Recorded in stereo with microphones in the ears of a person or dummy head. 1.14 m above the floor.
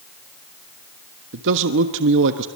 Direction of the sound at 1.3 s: 65° right (ahead or behind).